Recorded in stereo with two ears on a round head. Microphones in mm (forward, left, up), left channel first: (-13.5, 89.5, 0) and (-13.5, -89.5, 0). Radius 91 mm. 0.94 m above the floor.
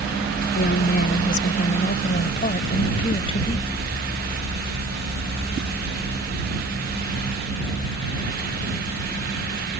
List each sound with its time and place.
0.6 s a woman speaking: 50° left (ahead or behind); by 3.7 s 25° left (ahead or behind)